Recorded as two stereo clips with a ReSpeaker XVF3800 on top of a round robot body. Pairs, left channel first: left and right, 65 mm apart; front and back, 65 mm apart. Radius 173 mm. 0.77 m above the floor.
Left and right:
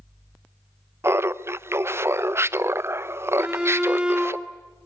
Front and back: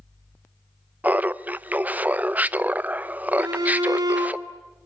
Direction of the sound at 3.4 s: 170° right.